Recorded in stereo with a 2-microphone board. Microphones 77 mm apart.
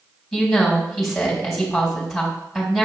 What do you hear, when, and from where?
0.3 s a woman speaking: centre (ahead or behind), 3 m